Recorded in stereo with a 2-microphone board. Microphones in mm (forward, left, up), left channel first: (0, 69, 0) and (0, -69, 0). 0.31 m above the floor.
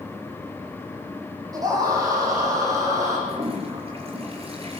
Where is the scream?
25° right (ahead or behind), 10 m.